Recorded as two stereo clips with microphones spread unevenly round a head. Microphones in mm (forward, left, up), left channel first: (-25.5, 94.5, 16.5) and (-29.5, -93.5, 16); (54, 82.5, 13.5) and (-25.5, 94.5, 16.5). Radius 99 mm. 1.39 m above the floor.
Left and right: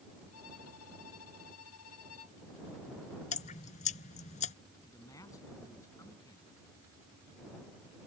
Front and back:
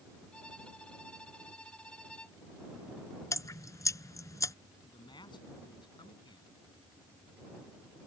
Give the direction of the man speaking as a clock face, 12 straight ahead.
12 o'clock.